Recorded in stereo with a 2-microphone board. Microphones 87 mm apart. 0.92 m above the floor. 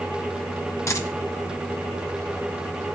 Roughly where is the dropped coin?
Left.